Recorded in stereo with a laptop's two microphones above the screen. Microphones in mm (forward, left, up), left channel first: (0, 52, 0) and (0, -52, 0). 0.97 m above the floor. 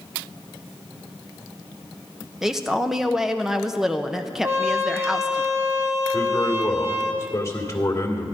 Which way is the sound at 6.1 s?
30° left (ahead or behind).